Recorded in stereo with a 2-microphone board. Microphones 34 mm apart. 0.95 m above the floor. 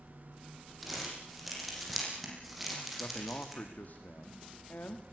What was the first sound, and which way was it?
Crumpling, 5° right (ahead or behind).